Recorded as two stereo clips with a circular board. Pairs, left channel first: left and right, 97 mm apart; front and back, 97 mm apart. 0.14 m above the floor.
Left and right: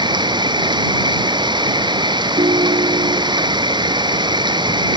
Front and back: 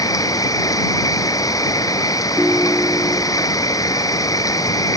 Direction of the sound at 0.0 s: 50° right.